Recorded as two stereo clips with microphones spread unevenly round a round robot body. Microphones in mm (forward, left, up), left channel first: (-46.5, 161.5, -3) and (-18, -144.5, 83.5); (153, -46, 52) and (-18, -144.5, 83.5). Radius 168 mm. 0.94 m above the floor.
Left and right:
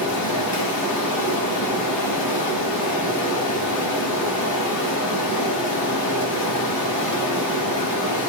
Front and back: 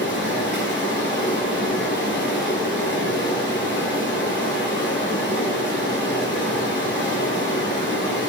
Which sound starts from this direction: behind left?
Running water, at 0.0 s.